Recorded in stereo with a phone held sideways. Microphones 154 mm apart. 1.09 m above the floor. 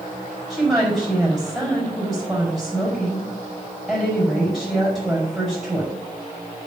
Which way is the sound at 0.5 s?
Centre (ahead or behind).